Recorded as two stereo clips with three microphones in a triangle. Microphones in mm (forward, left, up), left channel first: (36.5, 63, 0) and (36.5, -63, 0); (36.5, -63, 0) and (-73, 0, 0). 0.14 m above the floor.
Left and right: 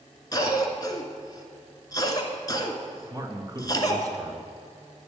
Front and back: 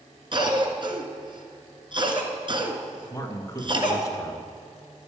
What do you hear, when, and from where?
0.3 s a cough: 130° left, 1.8 m
3.1 s a man speaking: 65° right, 1.6 m